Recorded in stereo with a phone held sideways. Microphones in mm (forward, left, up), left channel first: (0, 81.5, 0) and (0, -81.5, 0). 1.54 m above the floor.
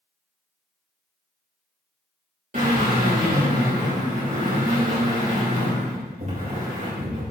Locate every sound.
2.5 s a drill: 55° right (ahead or behind), 4 m